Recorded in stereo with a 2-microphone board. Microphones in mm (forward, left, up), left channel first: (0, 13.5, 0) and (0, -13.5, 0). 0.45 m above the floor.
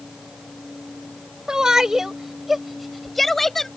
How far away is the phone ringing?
I don't hear a phone ringing.